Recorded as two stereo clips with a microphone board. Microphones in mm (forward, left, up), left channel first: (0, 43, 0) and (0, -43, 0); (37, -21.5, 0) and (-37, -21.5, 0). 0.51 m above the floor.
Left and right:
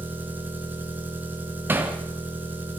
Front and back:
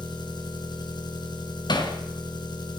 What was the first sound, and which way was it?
An engine running, 20° right.